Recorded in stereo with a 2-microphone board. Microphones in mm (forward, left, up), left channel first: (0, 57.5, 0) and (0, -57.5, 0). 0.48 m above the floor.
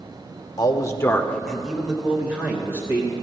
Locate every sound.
0.6 s a man speaking: 40° left (ahead or behind), 0.9 m; by 3.1 s 25° right (ahead or behind), 1.9 m